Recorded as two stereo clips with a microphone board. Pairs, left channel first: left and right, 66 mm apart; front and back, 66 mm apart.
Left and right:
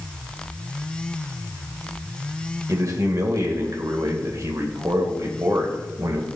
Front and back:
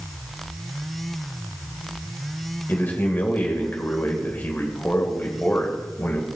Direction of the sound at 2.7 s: 60° right.